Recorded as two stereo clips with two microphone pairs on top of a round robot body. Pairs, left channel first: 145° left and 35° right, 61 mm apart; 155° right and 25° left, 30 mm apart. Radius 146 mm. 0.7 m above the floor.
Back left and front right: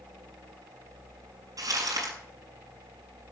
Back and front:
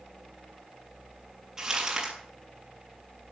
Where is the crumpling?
40° right, 7 m.